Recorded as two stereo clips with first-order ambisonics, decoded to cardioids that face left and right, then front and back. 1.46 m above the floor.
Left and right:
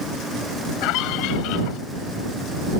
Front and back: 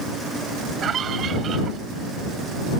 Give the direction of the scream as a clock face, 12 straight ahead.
8 o'clock.